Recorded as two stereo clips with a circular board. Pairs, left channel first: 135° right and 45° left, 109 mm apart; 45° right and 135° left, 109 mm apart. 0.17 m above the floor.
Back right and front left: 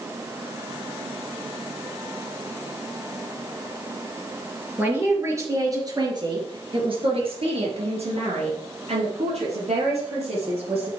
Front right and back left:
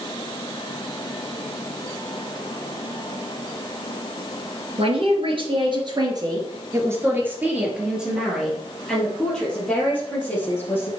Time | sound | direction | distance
4.8 | a man speaking | 115° left | 3.5 m